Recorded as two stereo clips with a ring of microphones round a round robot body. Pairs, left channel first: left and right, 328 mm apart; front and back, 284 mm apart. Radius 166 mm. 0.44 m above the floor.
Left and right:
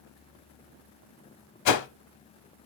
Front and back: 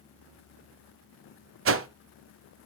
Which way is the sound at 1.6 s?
130° left.